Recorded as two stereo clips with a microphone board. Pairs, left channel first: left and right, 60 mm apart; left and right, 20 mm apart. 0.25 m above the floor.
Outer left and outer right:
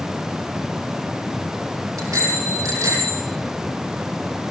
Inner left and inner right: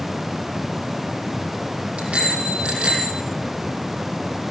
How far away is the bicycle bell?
About 7 m.